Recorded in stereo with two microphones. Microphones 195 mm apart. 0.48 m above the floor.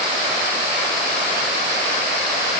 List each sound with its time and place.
Only background noise.